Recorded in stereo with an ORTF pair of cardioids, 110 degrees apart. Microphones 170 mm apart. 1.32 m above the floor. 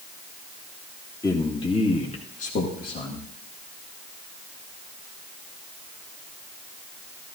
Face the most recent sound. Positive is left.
turn(degrees=65)